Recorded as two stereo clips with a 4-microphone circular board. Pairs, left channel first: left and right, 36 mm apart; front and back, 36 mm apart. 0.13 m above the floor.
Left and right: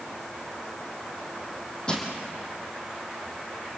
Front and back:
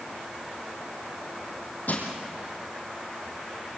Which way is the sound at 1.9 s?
30° left.